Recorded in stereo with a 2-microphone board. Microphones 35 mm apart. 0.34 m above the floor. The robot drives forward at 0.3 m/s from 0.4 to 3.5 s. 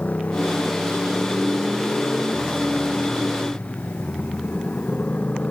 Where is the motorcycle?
50° left (ahead or behind); by 5.5 s 45° left (ahead or behind).